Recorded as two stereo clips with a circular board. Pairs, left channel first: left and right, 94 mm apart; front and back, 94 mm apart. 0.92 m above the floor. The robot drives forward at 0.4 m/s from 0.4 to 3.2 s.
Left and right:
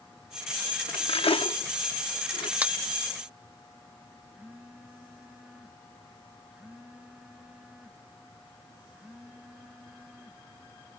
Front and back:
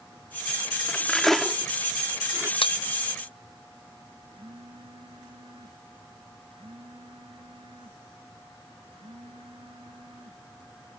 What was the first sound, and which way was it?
Cutlery clinking, 75° left.